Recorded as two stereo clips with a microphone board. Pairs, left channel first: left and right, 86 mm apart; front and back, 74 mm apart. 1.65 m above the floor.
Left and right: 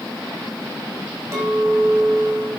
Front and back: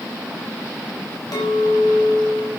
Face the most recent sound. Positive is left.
turn(degrees=-30)